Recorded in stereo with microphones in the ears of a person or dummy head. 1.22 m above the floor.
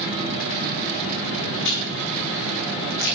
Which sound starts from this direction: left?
Chewing, at 1.6 s.